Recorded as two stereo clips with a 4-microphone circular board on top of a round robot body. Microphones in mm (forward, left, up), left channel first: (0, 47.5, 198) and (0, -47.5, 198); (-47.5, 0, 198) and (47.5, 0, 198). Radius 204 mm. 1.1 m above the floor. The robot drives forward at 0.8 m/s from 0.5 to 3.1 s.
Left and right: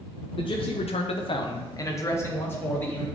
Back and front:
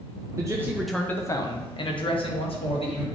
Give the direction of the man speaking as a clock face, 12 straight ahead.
10 o'clock.